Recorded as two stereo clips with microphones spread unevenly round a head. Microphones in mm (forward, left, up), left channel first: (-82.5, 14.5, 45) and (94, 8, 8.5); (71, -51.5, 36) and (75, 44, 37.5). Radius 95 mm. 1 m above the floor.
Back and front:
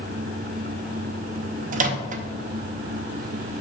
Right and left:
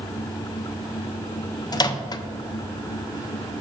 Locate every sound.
1.7 s a microwave: 45° right, 0.5 m